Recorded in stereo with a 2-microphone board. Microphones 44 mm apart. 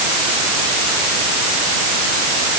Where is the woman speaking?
I don't hear a woman speaking.